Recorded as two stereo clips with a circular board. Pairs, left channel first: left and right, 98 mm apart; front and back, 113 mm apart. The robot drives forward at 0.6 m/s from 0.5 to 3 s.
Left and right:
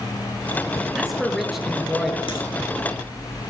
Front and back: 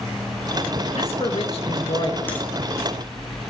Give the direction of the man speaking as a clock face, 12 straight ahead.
12 o'clock.